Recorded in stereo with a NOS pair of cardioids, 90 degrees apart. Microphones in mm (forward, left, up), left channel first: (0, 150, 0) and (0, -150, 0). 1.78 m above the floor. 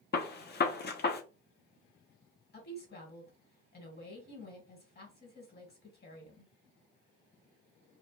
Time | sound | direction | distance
0.1 | a gunshot | 35° left | 0.6 m
2.5 | a woman speaking | 35° left | 1.4 m